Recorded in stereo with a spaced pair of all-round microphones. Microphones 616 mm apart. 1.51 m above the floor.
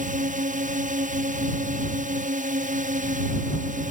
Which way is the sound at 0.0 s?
10° right (ahead or behind).